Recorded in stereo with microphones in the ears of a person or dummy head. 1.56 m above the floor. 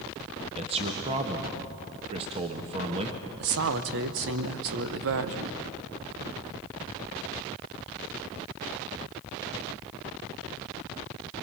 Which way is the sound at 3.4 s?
65° right (ahead or behind).